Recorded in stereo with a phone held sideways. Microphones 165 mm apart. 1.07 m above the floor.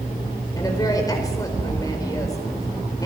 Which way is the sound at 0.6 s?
20° left (ahead or behind).